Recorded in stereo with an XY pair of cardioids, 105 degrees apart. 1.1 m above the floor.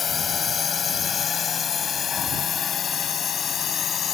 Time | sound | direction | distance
0.0 | a drone | 45° left | ?